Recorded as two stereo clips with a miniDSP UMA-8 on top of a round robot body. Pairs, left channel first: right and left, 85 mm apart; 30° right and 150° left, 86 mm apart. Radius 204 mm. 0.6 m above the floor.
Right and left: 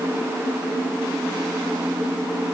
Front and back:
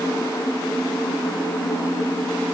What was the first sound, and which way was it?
Only background noise.